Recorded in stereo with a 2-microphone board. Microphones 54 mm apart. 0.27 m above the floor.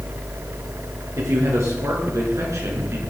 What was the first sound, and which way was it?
A man speaking, 75° right (ahead or behind).